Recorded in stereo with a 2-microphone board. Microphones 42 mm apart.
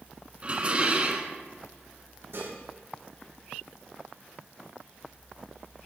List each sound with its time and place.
0.4 s dishes clattering: 30° right (ahead or behind), 0.9 m
2.3 s dishes clattering: 70° right (ahead or behind), 5 m